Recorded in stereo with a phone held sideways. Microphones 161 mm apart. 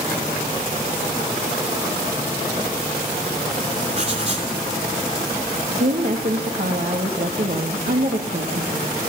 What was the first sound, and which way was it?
Writing, 45° right (ahead or behind).